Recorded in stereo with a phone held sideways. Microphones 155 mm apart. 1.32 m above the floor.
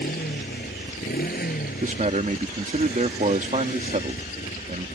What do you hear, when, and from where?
0.0 s a motorcycle: 80° left; by 5.0 s 65° left (ahead or behind)
1.8 s a man speaking: 55° right (ahead or behind)